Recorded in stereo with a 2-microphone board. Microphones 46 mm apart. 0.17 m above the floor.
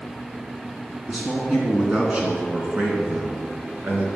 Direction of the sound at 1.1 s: 5° right (ahead or behind).